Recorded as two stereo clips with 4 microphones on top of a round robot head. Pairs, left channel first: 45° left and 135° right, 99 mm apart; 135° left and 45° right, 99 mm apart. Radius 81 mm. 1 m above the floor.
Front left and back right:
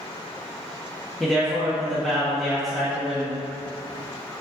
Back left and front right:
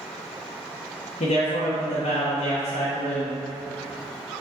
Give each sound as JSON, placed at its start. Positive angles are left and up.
{"t": 1.2, "sound": "a man speaking", "azimuth_deg": 140, "distance_m": 1.3}